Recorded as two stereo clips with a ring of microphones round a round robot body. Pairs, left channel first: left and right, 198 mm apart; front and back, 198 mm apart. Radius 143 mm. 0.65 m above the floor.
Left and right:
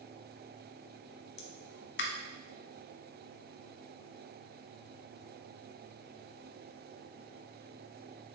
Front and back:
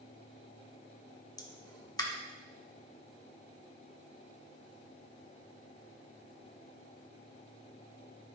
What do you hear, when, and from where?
1.4 s a pop: 70° left, 1.2 m